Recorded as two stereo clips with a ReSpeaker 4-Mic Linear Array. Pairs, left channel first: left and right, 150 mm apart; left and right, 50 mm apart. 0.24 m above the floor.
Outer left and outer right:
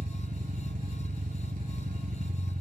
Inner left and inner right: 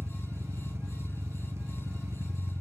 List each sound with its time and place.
0.0 s an engine running: 60° right (ahead or behind), 0.8 m